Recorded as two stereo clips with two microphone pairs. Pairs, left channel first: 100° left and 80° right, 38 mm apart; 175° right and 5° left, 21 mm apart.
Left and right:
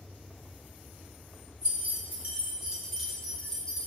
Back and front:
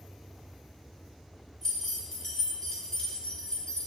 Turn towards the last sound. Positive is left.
turn(degrees=160)